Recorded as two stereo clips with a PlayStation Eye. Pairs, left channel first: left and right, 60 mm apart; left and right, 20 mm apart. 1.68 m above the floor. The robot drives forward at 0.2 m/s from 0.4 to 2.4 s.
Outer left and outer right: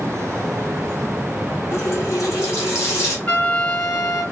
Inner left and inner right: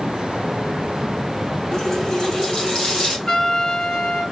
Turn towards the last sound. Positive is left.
turn(degrees=40)  # may be behind; listen again after turning